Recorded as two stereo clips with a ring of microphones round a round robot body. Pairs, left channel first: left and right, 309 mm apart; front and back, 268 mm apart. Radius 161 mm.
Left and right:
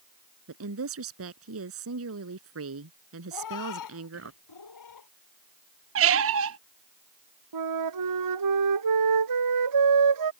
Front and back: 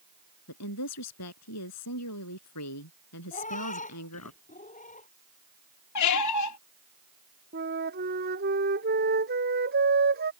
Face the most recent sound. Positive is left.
turn(degrees=-120)